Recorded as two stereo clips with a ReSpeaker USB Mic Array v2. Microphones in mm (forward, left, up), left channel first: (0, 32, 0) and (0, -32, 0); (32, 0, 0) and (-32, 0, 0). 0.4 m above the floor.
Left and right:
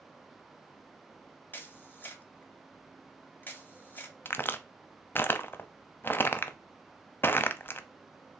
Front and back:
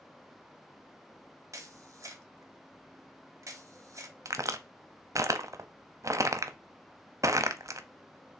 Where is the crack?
145° left, 0.5 m.